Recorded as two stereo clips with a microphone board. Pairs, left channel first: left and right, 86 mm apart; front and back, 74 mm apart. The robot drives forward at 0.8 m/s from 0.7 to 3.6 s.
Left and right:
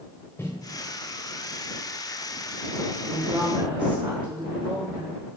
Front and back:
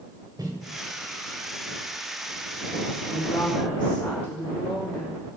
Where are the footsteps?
150° left, 4.5 m.